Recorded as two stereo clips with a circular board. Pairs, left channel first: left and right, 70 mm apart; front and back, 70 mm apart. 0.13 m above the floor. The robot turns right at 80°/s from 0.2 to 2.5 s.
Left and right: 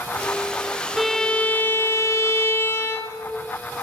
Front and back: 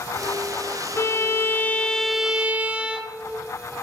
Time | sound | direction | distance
1.0 | a violin | 5° right | 0.6 m